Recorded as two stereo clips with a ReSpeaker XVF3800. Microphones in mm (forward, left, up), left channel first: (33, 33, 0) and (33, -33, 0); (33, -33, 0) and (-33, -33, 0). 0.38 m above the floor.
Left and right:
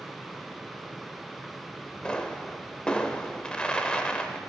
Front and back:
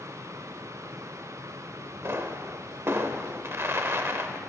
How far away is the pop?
About 0.7 m.